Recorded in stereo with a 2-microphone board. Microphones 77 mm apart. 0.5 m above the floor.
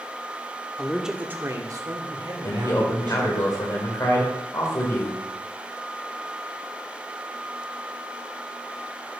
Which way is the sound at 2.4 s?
50° left (ahead or behind).